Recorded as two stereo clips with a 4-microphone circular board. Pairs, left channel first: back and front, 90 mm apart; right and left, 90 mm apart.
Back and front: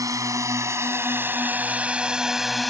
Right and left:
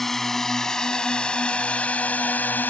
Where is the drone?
5° right; by 2.7 s 95° right.